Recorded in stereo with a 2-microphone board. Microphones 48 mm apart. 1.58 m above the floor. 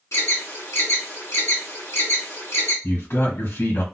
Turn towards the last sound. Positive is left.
turn(degrees=65)  # may be behind; listen again after turning